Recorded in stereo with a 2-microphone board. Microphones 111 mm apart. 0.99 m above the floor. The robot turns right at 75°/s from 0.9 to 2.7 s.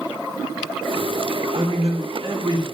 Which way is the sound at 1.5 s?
120° right.